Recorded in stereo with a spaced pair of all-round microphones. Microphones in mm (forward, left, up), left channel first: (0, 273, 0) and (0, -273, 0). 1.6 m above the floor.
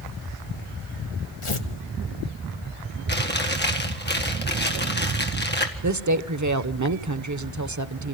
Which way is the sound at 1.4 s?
60° left (ahead or behind).